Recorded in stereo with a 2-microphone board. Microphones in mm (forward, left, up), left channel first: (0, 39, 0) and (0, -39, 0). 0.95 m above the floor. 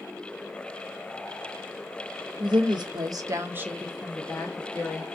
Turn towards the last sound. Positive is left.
turn(degrees=25)  # may be behind; listen again after turning